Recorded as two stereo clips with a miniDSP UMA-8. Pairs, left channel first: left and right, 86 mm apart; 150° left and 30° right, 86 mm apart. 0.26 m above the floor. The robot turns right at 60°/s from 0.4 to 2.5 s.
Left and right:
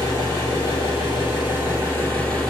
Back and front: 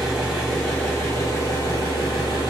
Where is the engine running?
50° left, 2 m; by 2.5 s 175° left, 2 m.